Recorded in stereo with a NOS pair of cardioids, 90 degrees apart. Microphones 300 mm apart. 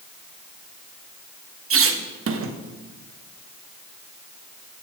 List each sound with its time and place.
1.7 s a squeak: 45° right, 1.0 m